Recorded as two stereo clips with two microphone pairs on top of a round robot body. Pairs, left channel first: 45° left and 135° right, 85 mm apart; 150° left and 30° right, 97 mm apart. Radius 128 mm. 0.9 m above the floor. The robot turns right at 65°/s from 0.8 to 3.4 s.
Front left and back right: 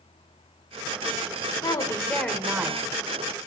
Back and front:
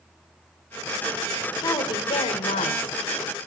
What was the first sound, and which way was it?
A woman speaking, 85° left.